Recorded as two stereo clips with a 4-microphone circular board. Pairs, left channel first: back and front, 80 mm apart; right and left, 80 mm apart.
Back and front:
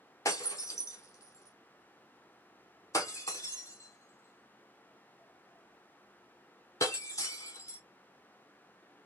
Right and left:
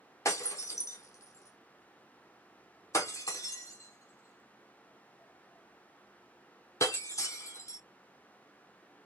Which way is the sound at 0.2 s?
135° right.